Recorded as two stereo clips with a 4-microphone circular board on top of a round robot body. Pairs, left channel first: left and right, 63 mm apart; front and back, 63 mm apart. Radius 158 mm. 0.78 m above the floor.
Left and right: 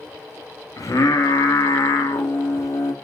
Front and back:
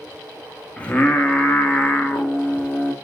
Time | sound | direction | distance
0.8 | singing | 70° left | 2.5 m